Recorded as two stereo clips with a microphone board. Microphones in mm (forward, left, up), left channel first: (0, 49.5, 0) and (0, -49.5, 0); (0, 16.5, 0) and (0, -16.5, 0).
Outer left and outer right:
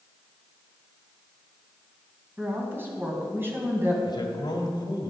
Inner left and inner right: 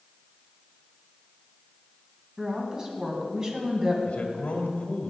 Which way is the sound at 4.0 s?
50° left (ahead or behind).